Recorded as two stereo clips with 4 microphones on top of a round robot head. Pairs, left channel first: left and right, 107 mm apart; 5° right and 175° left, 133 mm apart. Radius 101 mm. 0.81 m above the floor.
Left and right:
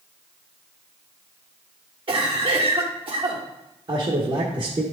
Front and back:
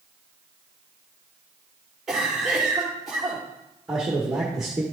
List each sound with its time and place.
2.1 s a cough: 95° right, 1.4 m
3.9 s a man speaking: 100° right, 1.4 m